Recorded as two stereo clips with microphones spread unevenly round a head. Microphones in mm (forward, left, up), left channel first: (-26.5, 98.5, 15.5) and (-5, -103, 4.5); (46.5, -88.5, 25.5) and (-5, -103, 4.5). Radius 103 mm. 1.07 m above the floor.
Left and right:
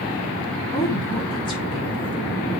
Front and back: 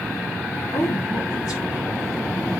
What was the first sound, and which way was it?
A woman speaking, 25° left.